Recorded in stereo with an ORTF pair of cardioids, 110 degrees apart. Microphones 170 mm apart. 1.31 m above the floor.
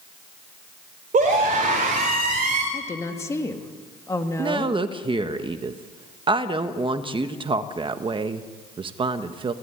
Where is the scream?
50° right, 3.5 m.